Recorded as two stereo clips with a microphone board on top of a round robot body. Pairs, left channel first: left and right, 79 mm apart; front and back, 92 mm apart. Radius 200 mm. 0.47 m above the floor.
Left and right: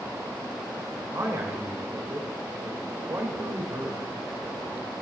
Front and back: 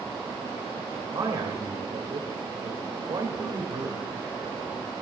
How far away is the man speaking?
About 1.8 m.